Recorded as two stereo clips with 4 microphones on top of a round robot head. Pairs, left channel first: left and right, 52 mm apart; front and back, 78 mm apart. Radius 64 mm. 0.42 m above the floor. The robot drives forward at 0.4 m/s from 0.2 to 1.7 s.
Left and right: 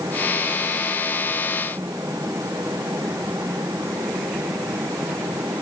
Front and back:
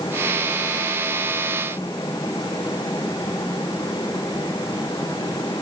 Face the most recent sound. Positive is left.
No sound to turn to.